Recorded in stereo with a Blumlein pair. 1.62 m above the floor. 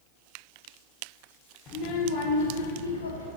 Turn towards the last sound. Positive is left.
turn(degrees=75)